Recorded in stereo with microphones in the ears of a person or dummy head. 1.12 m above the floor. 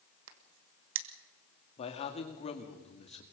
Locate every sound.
0.3 s a crack: 65° right (ahead or behind), 1.6 m
1.8 s a man speaking: 35° left (ahead or behind), 2.5 m